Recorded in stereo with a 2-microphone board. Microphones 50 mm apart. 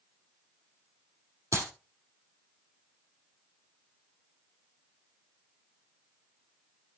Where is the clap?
70° right (ahead or behind), 3 m.